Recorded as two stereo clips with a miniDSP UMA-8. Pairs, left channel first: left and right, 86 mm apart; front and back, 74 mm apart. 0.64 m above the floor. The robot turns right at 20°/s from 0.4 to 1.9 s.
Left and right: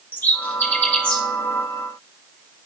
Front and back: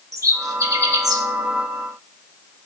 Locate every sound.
0.1 s a bird: 150° left, 0.9 m; by 1.2 s 170° left, 0.9 m